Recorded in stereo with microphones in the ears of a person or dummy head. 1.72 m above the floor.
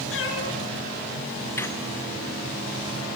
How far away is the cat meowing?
About 5.5 m.